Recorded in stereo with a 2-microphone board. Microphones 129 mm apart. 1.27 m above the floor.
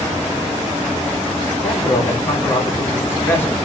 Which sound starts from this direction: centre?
A man speaking, at 1.5 s.